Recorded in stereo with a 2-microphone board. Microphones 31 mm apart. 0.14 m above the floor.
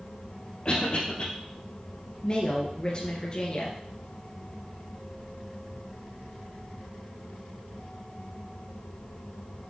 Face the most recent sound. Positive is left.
turn(degrees=25)  # may be behind; listen again after turning